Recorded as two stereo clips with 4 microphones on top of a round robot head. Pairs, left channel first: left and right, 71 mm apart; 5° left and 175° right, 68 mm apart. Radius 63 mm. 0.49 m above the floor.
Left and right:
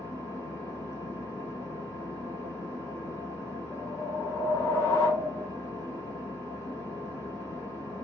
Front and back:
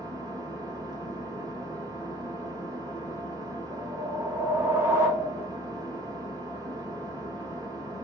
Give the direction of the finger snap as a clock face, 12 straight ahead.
I don't hear a finger snap.